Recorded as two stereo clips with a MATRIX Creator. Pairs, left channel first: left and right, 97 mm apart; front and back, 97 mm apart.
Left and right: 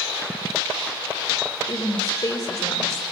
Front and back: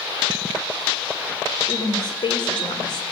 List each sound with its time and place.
1.7 s a woman speaking: 40° left, 4.5 m